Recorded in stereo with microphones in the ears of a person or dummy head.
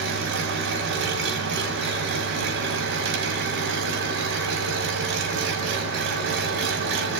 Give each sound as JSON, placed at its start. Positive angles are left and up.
{"t": 0.0, "sound": "an engine running", "side_deg": -55, "distance_m": 2.5}